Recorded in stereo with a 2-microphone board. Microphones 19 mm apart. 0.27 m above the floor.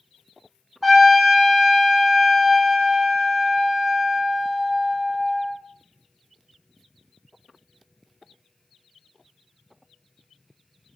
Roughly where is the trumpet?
Centre.